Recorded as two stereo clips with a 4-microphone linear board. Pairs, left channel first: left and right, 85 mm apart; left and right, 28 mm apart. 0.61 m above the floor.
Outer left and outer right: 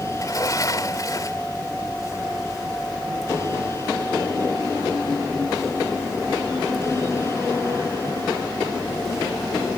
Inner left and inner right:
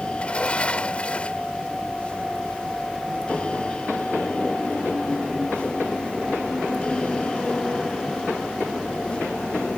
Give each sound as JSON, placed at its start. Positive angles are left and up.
{"t": 0.1, "sound": "a sliding door", "side_deg": 50}